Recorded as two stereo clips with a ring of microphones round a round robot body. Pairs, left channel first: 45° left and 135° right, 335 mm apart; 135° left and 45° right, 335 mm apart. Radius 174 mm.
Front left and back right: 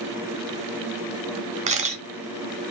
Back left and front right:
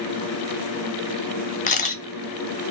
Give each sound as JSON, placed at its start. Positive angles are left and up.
{"t": 1.7, "sound": "a camera shutter", "azimuth_deg": 175, "distance_m": 1.1}